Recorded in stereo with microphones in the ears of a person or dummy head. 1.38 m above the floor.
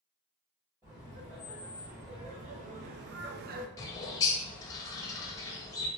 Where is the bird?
20° left (ahead or behind), 0.5 m.